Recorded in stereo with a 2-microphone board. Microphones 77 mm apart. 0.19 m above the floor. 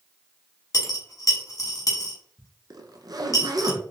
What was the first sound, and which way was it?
A dropped coin, 50° left (ahead or behind).